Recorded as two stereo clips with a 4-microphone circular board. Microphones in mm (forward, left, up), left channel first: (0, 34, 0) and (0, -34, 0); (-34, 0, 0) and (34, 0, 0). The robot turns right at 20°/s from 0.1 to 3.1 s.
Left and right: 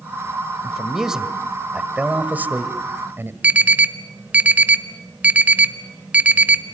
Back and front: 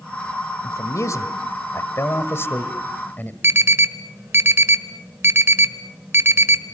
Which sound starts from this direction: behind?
A man speaking, at 0.6 s.